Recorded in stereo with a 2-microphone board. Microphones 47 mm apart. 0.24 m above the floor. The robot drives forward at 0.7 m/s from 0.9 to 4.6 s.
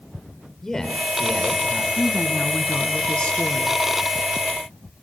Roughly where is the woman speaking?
Left.